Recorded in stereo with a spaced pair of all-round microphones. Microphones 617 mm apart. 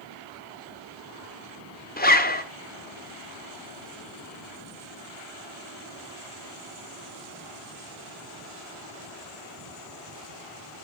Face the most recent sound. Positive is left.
turn(degrees=15)  # may be behind; listen again after turning